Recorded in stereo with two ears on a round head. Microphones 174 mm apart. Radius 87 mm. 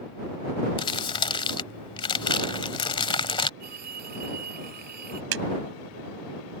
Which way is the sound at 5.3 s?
75° right (ahead or behind).